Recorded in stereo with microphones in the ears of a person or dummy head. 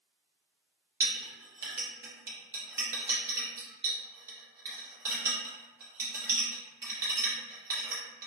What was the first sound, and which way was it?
A clink, 15° right (ahead or behind).